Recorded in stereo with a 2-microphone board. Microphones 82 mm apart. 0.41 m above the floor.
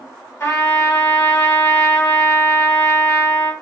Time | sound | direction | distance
0.4 | a trumpet | 35° left (ahead or behind) | 1.6 m